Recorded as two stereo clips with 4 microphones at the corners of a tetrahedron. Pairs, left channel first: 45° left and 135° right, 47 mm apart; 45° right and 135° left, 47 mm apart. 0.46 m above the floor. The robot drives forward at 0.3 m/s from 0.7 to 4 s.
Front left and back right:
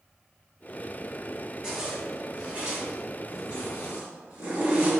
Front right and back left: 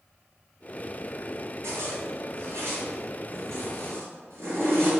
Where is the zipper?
150° left, 1.8 m; by 4.9 s 155° left, 2.5 m.